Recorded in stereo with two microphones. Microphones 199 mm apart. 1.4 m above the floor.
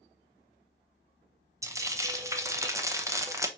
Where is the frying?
15° right (ahead or behind), 0.8 m.